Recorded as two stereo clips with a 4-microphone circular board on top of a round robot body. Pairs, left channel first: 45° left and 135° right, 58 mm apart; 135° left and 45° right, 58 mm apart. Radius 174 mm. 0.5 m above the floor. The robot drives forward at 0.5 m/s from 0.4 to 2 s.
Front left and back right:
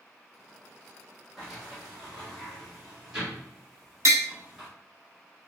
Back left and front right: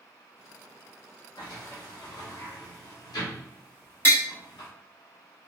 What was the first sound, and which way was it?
A sliding door, 135° left.